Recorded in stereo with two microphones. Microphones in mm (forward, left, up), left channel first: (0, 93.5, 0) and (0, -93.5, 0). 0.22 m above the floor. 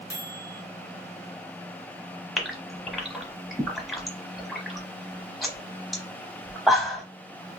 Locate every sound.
0.1 s a microwave: 10° left (ahead or behind), 1.4 m
2.4 s a gasp: centre (ahead or behind), 0.8 m